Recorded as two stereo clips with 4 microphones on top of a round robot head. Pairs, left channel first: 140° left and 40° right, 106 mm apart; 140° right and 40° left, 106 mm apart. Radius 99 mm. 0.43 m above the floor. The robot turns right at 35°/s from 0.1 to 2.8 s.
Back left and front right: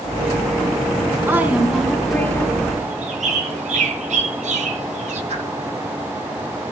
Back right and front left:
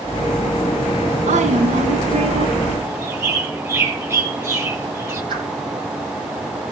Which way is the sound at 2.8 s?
25° right.